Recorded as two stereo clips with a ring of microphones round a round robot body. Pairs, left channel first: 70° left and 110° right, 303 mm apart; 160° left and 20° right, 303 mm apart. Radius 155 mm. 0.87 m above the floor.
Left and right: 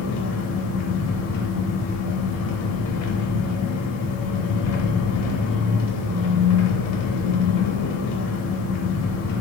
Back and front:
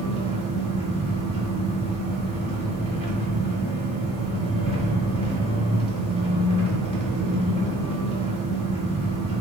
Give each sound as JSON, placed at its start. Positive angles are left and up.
{"t": 0.0, "sound": "an engine running", "azimuth_deg": 90, "distance_m": 0.8}